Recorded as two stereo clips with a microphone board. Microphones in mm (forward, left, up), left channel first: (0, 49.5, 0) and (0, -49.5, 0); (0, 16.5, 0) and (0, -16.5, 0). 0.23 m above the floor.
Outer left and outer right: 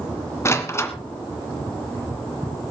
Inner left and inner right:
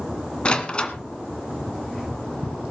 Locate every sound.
0.5 s a door slam: 25° left (ahead or behind), 2 m